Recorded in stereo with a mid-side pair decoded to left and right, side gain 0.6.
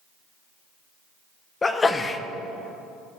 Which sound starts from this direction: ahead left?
A sneeze, at 1.6 s.